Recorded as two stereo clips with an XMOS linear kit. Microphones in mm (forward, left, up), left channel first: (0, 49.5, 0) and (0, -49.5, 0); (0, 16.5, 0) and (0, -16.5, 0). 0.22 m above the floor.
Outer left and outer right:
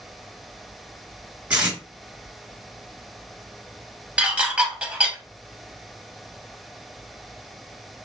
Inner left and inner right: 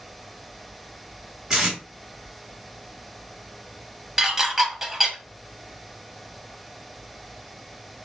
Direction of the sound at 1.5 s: 15° right (ahead or behind).